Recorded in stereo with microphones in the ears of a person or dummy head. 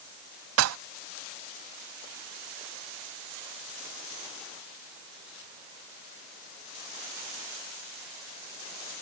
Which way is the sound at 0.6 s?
70° right (ahead or behind).